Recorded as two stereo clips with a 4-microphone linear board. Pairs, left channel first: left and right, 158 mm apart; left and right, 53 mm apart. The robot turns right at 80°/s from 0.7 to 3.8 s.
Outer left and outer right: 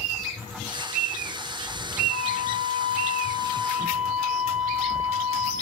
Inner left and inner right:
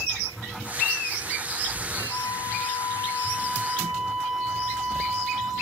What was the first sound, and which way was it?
A flute, 45° left.